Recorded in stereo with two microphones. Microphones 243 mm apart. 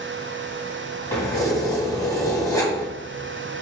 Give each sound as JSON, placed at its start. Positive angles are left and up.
{"t": 1.1, "sound": "keys jangling", "side_deg": 15, "distance_m": 1.1}